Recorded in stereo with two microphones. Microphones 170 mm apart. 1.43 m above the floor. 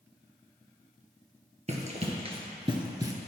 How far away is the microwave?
No microwave in this recording.